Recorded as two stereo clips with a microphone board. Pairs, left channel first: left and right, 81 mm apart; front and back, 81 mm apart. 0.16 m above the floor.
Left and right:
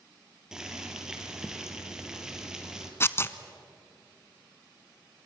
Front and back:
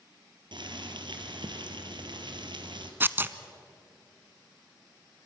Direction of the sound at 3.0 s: 130° left.